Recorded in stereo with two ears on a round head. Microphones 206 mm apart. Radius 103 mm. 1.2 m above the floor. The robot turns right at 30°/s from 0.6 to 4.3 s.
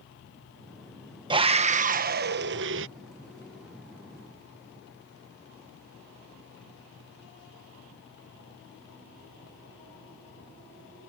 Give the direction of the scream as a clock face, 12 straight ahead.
5 o'clock.